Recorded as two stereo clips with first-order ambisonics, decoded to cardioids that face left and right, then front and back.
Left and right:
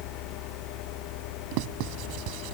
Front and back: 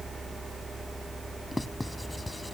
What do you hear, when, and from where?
1.5 s writing: 80° right